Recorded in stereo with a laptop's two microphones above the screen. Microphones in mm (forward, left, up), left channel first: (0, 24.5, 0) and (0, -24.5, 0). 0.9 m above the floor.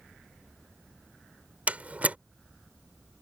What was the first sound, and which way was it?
A door slam, 30° right (ahead or behind).